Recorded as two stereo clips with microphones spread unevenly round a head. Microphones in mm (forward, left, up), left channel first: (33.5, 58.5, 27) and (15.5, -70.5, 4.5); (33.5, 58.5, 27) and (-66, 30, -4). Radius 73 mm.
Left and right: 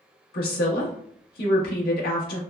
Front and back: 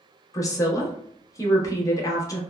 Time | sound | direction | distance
0.3 | a woman speaking | 75° left | 1.0 m